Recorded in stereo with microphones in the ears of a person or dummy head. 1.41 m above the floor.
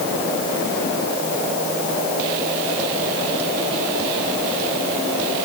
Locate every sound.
Only background noise.